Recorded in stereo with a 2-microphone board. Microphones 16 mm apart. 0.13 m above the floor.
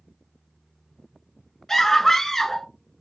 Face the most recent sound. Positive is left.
turn(degrees=20)  # may be behind; listen again after turning